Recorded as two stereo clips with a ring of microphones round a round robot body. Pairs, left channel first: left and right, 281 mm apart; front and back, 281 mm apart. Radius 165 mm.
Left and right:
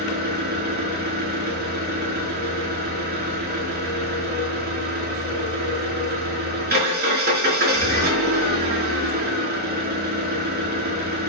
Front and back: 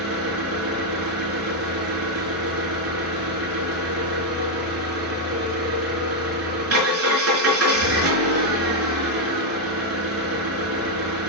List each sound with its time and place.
0.0 s an engine running: 145° right, 4.5 m